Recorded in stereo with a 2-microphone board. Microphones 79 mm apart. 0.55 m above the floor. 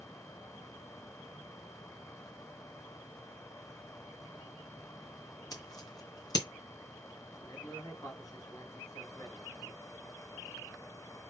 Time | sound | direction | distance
5.5 | scissors | 55° left (ahead or behind) | 2.5 m
7.4 | a man speaking | 50° left (ahead or behind) | 3 m